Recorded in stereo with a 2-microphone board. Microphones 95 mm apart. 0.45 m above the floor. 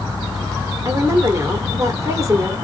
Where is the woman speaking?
30° right (ahead or behind), 1.3 m.